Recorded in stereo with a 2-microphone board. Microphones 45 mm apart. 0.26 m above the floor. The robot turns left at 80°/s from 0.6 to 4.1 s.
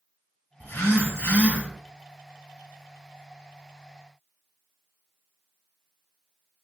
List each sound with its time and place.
0.6 s a phone buzzing: 110° left, 1.1 m; by 1.6 s 30° left, 1.1 m